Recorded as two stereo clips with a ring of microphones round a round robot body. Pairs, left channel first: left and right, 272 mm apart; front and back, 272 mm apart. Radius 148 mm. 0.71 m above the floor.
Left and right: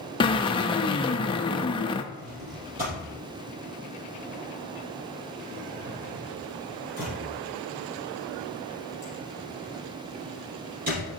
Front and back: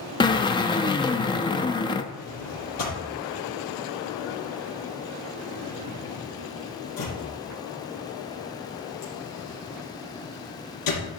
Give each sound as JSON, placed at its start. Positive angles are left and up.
{"t": 0.2, "sound": "a drill", "azimuth_deg": 45, "distance_m": 0.8}
{"t": 2.1, "sound": "a drawer", "azimuth_deg": -25, "distance_m": 5.0}